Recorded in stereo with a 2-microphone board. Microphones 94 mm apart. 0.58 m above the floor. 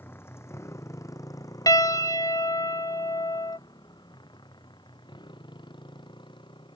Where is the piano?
40° left (ahead or behind).